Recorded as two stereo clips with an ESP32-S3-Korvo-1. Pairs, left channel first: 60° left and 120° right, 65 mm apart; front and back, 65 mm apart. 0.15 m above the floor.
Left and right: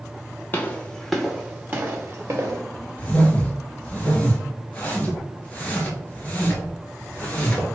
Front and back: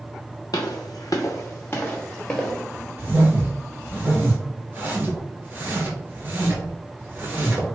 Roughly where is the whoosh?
Behind left.